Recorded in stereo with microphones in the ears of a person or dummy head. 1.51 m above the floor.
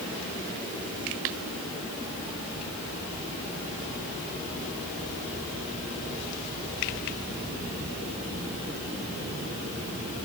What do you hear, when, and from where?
Only background noise.